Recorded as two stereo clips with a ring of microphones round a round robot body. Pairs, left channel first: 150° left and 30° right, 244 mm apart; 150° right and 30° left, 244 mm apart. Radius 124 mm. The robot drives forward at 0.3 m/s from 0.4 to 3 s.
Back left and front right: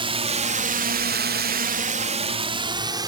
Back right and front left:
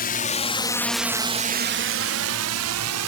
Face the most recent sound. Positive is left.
turn(degrees=45)